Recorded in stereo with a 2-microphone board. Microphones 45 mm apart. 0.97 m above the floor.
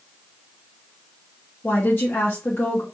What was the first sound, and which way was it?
A woman speaking, 50° left (ahead or behind).